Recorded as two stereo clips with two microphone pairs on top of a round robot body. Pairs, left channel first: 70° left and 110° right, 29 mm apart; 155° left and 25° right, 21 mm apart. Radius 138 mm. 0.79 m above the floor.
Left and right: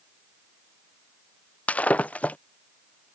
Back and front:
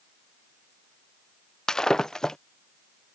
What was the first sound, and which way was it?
Breaking glass, 100° left.